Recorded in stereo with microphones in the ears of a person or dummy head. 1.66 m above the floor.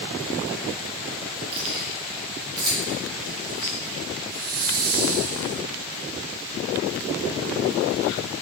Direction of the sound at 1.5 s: 25° right (ahead or behind).